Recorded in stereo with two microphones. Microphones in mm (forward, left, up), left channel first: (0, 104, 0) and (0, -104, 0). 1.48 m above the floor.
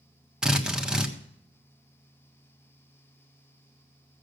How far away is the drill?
About 1.3 m.